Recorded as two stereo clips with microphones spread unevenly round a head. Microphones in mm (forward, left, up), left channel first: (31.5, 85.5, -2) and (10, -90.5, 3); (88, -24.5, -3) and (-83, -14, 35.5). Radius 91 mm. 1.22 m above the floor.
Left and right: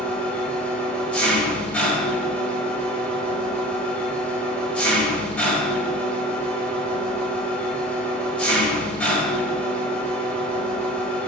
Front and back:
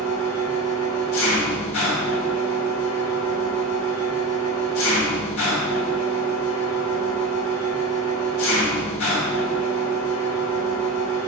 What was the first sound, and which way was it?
An engine running, straight ahead.